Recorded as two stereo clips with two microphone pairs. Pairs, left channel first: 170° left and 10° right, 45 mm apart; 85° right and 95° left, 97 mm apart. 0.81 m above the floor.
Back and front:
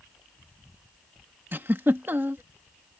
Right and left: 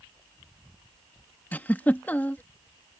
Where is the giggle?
15° right.